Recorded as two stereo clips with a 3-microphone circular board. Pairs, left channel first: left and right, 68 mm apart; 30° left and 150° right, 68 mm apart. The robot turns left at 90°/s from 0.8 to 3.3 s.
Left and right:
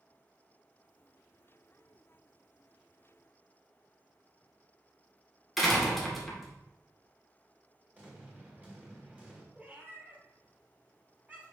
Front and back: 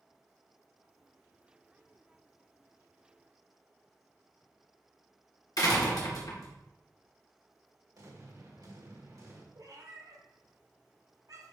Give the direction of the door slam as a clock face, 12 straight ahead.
12 o'clock.